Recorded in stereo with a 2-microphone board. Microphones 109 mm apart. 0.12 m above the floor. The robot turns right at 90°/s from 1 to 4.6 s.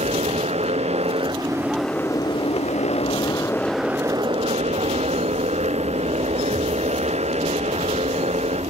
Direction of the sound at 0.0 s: 75° right (ahead or behind).